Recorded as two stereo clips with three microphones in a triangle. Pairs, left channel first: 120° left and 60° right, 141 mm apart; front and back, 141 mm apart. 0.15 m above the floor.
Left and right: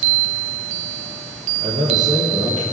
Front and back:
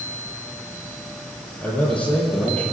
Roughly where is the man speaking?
Right.